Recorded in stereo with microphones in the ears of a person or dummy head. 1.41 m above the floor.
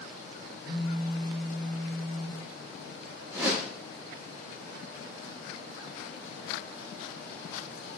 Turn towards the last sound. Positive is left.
turn(degrees=-15)  # may be behind; listen again after turning